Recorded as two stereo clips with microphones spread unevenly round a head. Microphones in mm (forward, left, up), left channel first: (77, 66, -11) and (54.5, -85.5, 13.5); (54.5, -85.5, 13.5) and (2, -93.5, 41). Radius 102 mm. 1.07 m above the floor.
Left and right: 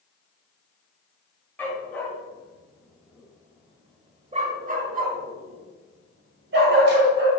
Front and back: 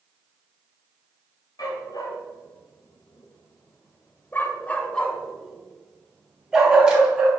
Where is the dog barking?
Straight ahead, 2.5 m; by 7.3 s 115° right, 3 m.